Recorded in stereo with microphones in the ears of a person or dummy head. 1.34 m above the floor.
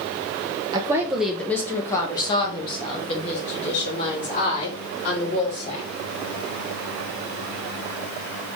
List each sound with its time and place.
0.7 s a woman speaking: 20° right (ahead or behind), 0.7 m; by 5.9 s 45° left (ahead or behind), 3.5 m